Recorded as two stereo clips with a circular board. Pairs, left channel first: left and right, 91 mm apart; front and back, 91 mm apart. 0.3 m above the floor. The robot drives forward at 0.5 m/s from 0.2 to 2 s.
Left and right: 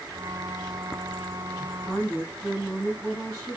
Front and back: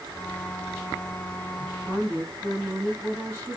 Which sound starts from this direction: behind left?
A woman speaking, at 1.6 s.